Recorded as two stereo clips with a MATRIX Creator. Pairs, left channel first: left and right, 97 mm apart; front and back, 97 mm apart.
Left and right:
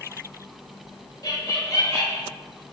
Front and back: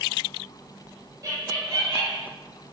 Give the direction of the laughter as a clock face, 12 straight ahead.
8 o'clock.